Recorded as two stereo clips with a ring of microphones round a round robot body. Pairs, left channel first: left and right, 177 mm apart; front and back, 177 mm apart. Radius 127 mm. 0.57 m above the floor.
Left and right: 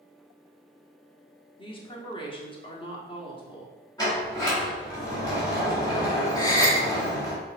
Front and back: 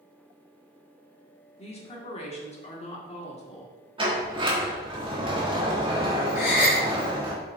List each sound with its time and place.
1.6 s a woman speaking: 40° left, 1.4 m
4.0 s a sliding door: 145° left, 1.4 m
6.3 s a gasp: 20° left, 2 m